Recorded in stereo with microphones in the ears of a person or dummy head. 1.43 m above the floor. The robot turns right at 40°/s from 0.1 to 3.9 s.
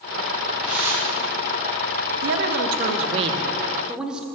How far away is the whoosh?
About 1.6 m.